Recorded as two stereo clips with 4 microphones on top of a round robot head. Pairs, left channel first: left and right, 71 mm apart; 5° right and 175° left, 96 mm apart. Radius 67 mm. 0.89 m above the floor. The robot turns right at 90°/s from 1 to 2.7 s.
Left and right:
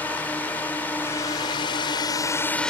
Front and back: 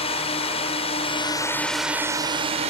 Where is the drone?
15° left; by 2.7 s 170° left.